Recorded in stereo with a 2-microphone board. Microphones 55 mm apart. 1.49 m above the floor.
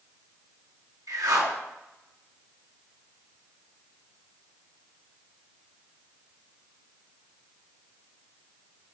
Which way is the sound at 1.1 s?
75° right (ahead or behind).